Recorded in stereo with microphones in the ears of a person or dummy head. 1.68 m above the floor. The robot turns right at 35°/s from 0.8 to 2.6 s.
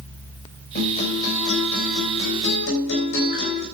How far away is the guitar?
About 3 m.